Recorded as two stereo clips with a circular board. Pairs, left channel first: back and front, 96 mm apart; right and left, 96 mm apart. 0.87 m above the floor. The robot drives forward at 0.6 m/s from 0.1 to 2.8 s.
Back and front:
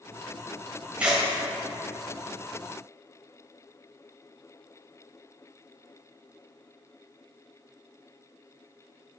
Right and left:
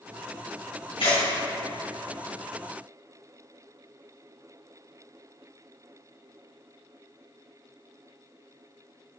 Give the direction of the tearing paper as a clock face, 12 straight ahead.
3 o'clock.